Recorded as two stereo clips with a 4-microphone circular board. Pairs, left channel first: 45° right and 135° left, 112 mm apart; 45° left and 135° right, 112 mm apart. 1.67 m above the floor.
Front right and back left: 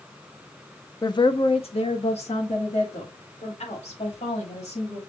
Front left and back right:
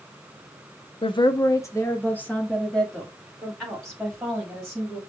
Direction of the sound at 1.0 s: 10° left.